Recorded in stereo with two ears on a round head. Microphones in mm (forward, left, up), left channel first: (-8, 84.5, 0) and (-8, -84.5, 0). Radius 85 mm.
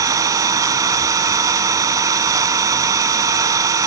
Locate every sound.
0.0 s an engine running: 15° right (ahead or behind), 0.8 m